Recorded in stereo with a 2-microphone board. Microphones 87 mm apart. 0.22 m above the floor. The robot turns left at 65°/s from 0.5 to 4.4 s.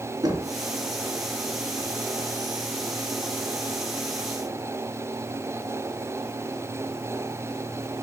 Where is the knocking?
50° right (ahead or behind), 2.5 m; by 0.6 s 45° right (ahead or behind), 2.5 m.